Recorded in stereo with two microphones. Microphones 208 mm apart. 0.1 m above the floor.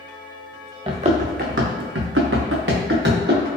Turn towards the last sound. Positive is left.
turn(degrees=-55)  # may be behind; listen again after turning